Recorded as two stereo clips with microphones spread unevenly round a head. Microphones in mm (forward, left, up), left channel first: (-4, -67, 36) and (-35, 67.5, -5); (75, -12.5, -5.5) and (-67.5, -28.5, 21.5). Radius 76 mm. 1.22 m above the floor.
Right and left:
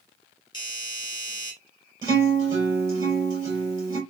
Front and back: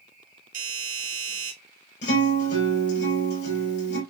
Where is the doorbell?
140° right, 2 m.